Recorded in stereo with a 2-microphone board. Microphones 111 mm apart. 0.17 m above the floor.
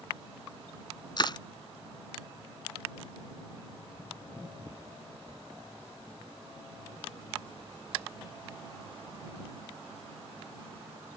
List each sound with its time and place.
1.2 s crushing: 45° left (ahead or behind)